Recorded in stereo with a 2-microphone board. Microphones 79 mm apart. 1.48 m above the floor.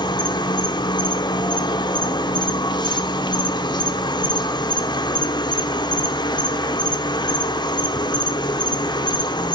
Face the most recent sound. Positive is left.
turn(degrees=80)